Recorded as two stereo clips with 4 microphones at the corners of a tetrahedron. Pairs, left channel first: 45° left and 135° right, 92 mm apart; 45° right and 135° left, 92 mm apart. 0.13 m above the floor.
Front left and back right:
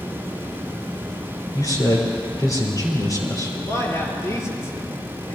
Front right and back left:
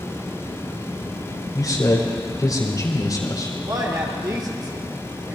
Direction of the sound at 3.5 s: 95° left.